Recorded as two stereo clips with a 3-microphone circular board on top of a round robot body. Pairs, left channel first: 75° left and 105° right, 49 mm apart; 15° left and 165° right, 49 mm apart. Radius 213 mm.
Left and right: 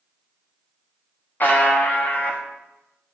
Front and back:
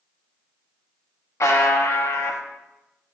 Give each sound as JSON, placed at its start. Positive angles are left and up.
{"t": 1.4, "sound": "a buzzer", "azimuth_deg": 25, "distance_m": 1.2}